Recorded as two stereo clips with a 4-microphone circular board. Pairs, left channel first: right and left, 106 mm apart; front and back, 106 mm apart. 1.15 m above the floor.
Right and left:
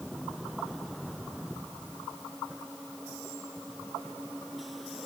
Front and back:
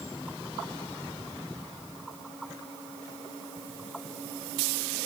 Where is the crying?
I don't hear crying.